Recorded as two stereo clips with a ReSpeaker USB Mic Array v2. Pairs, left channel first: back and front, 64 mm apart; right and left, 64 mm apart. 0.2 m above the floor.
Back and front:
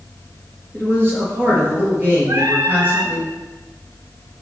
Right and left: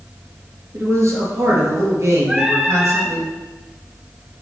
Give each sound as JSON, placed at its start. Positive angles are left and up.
{"t": 0.7, "sound": "a man speaking", "azimuth_deg": 55, "distance_m": 3.5}
{"t": 2.3, "sound": "singing", "azimuth_deg": 10, "distance_m": 1.2}